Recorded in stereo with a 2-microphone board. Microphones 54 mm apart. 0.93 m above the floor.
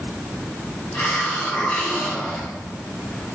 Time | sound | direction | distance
0.9 | a hiss | 40° left (ahead or behind) | 7 m